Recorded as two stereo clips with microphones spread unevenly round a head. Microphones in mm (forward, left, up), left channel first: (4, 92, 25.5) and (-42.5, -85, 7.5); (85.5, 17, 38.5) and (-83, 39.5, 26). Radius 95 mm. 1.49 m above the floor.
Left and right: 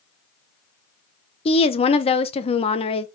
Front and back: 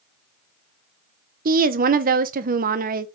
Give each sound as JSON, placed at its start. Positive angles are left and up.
{"t": 1.4, "sound": "a woman speaking", "azimuth_deg": 130, "distance_m": 0.8}